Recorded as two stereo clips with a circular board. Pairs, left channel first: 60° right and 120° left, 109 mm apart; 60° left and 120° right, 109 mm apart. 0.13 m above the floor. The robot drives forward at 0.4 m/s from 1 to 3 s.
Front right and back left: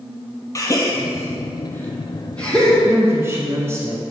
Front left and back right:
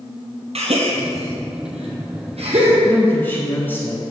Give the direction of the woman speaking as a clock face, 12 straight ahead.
9 o'clock.